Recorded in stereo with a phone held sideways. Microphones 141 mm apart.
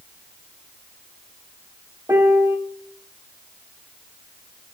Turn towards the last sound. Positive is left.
turn(degrees=-15)  # may be behind; listen again after turning